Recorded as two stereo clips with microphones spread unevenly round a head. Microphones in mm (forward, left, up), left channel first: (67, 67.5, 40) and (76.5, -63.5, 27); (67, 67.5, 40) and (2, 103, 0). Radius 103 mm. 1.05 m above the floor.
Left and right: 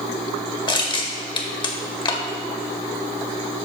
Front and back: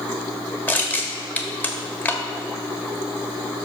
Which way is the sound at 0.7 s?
40° left.